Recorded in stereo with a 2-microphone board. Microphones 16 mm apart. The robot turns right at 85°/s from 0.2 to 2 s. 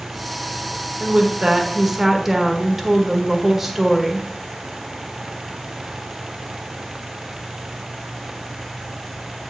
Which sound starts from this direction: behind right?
A woman speaking, at 1.0 s.